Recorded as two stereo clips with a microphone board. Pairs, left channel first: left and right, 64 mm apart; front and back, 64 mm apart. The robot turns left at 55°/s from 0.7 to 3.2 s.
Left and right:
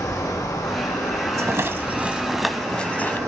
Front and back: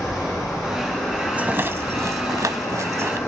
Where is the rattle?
120° right, 0.6 m; by 3.2 s 140° left, 0.6 m.